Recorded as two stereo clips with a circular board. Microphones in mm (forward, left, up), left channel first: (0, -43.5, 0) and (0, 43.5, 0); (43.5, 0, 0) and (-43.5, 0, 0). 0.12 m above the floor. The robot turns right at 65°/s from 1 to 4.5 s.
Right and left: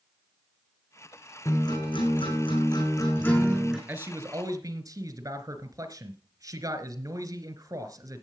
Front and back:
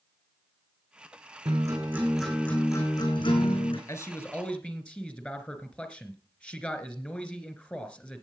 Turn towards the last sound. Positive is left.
turn(degrees=70)